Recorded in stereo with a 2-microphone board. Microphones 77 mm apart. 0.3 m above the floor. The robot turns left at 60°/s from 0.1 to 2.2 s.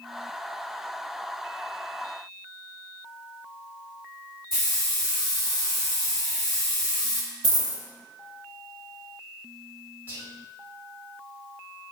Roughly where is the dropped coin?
Right.